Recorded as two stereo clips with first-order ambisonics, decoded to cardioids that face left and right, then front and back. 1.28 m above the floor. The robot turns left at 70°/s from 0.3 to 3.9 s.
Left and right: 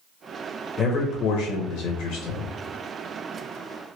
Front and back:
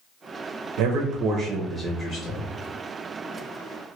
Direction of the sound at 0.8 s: 160° left.